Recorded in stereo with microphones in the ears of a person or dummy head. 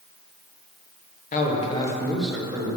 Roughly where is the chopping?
I don't hear chopping.